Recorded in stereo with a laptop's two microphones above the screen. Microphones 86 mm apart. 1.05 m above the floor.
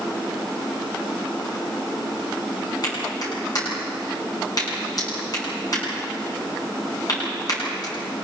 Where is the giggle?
I don't hear a giggle.